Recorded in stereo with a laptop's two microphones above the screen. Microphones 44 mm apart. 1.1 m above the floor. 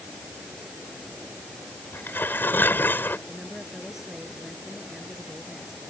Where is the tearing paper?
50° left (ahead or behind).